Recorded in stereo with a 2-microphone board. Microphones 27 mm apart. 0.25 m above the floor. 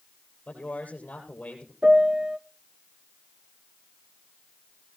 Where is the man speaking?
60° left (ahead or behind), 5 m.